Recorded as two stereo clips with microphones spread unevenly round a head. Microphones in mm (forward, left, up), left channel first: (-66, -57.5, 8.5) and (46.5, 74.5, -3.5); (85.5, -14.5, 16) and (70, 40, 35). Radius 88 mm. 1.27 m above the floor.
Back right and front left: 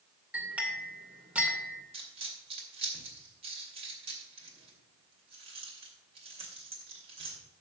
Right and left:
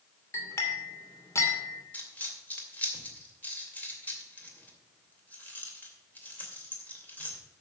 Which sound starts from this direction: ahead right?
A clink, at 0.3 s.